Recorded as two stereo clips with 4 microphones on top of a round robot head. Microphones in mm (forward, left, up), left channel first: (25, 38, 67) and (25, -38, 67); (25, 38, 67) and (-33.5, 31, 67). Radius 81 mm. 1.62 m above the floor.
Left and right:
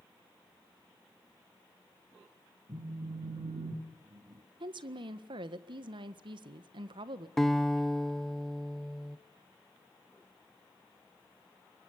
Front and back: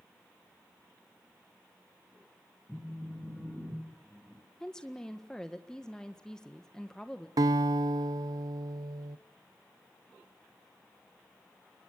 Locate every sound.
2.7 s a phone buzzing: 75° right, 5 m
4.6 s a woman speaking: 75° right, 1.7 m
7.4 s a guitar: 175° left, 0.9 m